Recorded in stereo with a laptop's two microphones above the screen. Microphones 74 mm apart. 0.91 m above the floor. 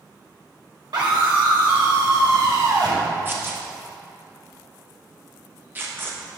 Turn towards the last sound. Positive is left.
turn(degrees=-25)  # may be behind; listen again after turning